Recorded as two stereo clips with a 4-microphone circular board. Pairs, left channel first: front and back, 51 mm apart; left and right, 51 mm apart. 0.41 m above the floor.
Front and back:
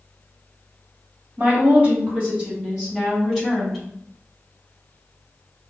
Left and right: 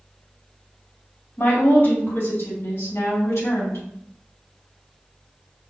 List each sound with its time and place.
1.4 s a woman speaking: 135° left, 1.8 m; by 3.8 s 95° left, 3 m